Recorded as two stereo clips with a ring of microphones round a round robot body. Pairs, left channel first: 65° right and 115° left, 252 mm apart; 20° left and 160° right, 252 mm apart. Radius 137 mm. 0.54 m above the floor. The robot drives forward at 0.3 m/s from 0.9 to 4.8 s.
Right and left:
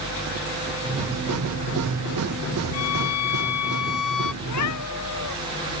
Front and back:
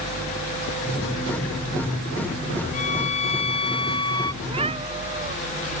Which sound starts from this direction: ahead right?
A violin, at 2.7 s.